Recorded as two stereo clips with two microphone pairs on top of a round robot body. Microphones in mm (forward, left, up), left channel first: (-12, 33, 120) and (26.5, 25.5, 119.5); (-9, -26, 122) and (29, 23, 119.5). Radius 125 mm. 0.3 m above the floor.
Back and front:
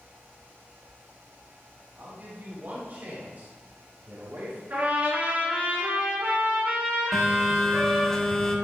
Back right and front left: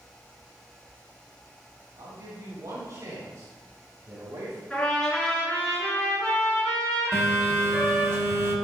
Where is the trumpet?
50° right, 4.5 m.